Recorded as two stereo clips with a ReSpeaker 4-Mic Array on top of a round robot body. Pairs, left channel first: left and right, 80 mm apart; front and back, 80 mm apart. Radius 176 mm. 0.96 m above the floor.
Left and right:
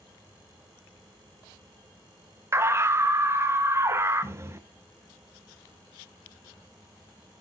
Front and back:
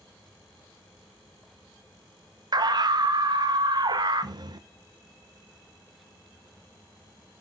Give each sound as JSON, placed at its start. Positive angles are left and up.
{"t": 2.5, "sound": "a scream", "azimuth_deg": -145, "distance_m": 1.4}